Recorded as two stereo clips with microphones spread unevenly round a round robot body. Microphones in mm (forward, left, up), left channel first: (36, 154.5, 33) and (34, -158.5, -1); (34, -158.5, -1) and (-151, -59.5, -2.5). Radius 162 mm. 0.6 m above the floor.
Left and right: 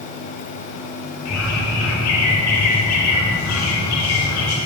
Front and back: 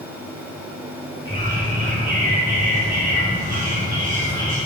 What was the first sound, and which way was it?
A bird, 50° left.